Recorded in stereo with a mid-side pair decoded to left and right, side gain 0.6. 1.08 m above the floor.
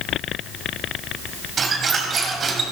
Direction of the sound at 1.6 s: 40° right.